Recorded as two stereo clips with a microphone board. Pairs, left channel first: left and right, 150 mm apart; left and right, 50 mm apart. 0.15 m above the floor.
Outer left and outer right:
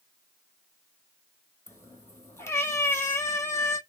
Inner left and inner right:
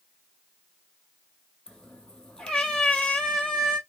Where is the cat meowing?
15° left (ahead or behind), 0.6 m.